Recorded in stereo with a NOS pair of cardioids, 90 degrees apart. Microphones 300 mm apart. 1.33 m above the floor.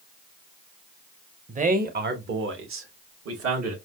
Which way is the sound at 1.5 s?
25° right.